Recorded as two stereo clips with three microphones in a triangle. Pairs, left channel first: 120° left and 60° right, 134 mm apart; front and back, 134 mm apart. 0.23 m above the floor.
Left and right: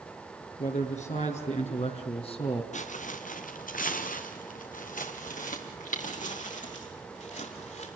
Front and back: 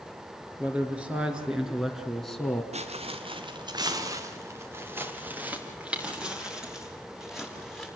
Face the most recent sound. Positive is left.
turn(degrees=90)